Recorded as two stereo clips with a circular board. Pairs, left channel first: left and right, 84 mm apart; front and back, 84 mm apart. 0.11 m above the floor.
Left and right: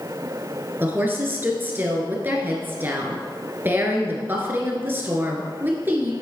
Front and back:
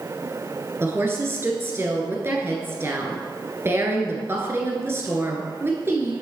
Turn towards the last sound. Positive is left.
turn(degrees=-140)